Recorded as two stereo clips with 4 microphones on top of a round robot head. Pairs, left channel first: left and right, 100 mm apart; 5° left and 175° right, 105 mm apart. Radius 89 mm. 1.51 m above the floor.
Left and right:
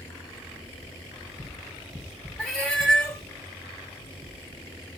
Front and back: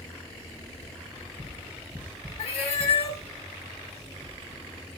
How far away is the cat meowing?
About 1.3 m.